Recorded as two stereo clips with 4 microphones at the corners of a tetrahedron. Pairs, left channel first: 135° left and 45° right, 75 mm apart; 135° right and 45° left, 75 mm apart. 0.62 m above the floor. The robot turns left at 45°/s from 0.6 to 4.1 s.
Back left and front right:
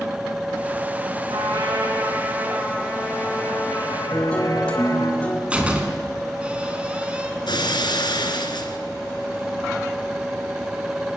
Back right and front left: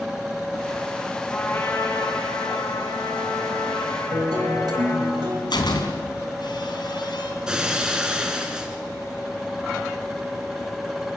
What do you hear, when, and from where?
1.3 s a trumpet: 60° right, 6.5 m; by 5.1 s 175° left, 6.5 m
4.1 s a guitar: 60° left, 4.5 m
5.5 s a door slam: 120° right, 3.5 m
7.5 s breaking glass: 125° left, 3 m